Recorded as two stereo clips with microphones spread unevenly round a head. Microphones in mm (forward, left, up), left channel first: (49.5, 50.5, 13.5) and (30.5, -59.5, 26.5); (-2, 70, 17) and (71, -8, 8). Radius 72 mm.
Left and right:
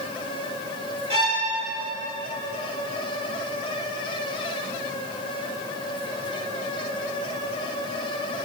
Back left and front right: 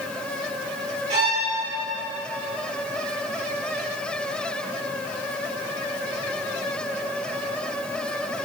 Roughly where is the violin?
Ahead right.